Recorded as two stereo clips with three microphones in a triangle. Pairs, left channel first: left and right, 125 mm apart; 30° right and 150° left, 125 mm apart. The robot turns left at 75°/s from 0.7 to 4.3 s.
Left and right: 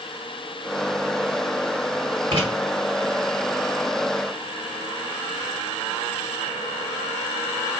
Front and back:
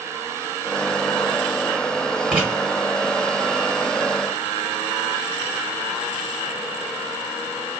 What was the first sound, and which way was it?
Writing, 125° right.